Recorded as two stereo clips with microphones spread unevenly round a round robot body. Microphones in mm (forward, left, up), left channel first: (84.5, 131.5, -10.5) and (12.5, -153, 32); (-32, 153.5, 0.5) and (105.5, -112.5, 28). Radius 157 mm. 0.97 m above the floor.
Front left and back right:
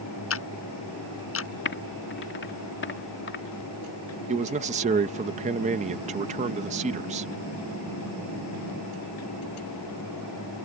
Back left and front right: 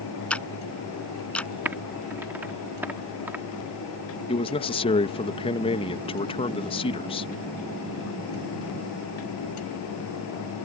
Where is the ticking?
30° left.